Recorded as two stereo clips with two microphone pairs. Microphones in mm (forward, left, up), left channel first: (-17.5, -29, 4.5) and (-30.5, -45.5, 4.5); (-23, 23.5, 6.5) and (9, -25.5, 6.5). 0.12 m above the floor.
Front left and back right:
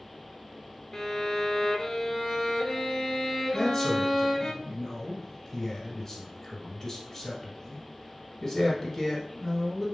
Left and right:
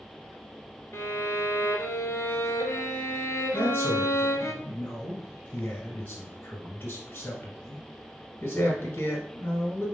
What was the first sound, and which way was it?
A violin, 115° left.